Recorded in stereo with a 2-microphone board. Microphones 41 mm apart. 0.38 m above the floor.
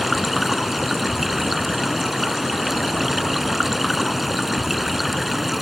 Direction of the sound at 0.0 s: 5° right (ahead or behind).